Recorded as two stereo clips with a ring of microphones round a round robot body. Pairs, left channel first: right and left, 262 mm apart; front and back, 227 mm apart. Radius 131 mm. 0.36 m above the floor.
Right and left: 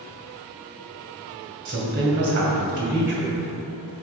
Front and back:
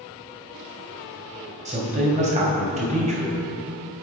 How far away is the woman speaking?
About 2.5 m.